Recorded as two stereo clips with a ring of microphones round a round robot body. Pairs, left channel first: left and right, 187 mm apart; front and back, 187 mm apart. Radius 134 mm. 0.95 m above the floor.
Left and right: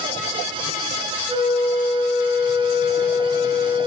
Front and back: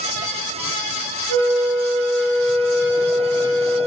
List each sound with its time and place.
1.3 s a flute: 30° right, 0.9 m